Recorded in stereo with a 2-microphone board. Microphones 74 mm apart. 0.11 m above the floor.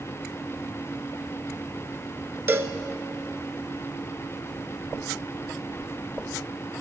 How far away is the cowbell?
About 0.6 m.